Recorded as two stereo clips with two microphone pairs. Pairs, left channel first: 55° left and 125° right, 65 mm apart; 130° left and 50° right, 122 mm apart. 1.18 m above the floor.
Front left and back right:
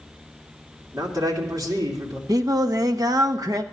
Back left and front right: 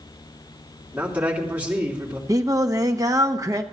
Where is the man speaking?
125° right, 3 m.